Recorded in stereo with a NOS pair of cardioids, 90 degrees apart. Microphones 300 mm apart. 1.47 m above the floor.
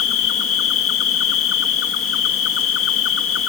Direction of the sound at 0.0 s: 50° left.